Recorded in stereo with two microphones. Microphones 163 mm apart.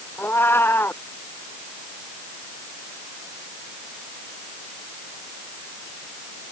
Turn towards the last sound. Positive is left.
turn(degrees=15)  # may be behind; listen again after turning